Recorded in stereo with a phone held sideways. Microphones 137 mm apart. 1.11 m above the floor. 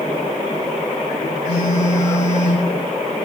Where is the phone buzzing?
55° left (ahead or behind), 1.7 m.